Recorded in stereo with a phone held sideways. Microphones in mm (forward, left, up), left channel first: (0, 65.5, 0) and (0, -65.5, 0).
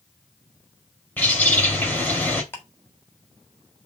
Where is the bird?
15° left (ahead or behind), 2.5 m.